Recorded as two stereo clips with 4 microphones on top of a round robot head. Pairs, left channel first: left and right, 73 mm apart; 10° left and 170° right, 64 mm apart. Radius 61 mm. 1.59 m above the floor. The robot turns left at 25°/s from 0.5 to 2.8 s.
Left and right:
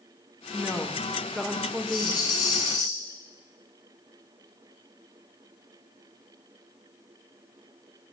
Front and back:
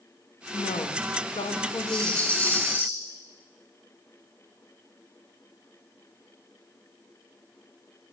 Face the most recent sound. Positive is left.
turn(degrees=60)